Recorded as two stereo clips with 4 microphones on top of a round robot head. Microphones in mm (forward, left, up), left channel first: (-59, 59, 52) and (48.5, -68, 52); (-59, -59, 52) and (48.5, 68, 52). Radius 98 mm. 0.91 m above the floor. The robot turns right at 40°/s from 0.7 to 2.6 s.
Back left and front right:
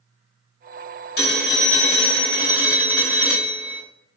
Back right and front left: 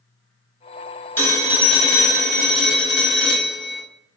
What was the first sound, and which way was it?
A phone ringing, 150° left.